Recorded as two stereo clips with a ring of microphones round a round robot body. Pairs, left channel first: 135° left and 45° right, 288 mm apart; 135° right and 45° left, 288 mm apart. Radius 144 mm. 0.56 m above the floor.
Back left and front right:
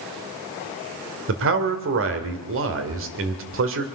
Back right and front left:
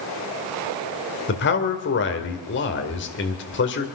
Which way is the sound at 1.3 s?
85° right.